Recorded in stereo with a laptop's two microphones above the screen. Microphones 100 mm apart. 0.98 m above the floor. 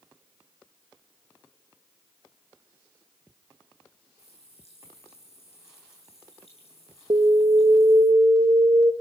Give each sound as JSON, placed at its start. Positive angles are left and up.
{"t": 4.2, "sound": "a running tap", "side_deg": 85, "distance_m": 9.0}
{"t": 7.1, "sound": "an alarm", "side_deg": -60, "distance_m": 1.5}